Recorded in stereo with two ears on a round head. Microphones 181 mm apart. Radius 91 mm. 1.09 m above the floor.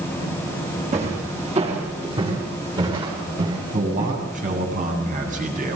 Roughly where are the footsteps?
Right.